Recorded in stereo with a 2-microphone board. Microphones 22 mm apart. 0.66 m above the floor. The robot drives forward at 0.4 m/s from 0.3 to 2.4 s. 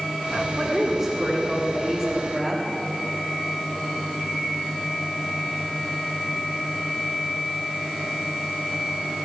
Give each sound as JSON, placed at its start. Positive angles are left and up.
{"t": 0.6, "sound": "a woman speaking", "side_deg": -5, "distance_m": 1.9}